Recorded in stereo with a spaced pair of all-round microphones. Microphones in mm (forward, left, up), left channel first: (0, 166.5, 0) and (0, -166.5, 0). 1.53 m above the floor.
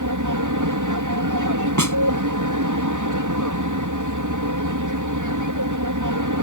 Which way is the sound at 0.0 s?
65° right (ahead or behind).